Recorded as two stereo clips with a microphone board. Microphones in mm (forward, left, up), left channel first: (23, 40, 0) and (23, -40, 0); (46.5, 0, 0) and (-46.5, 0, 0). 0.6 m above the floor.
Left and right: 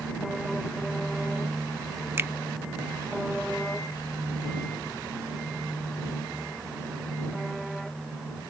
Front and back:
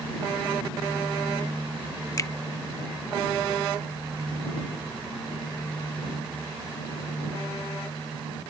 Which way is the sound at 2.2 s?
40° right.